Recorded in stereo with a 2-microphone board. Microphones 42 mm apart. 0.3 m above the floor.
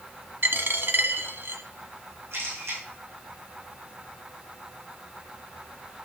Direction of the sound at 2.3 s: 80° right.